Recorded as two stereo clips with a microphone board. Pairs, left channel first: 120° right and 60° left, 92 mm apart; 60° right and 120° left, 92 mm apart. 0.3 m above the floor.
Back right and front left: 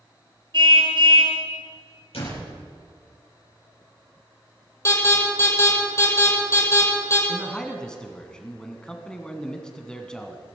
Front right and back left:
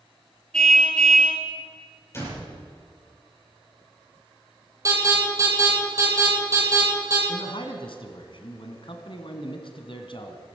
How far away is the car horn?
About 2.5 m.